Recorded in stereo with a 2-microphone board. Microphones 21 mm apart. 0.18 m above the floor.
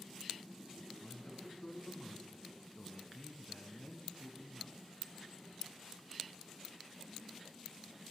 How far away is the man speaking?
About 1.7 m.